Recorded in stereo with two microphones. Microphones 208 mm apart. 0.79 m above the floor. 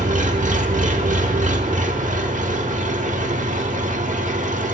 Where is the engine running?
35° right (ahead or behind), 1.1 m.